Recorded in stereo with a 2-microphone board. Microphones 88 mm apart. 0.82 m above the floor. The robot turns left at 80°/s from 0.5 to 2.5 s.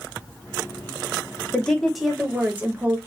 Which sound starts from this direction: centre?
A woman speaking, at 1.5 s.